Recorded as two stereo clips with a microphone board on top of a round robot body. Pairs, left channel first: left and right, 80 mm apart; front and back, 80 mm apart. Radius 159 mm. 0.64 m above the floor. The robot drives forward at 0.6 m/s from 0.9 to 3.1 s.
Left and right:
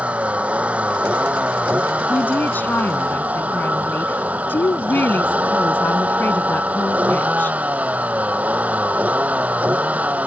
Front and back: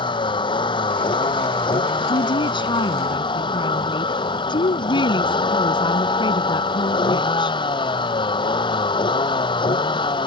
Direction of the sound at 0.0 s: 15° right.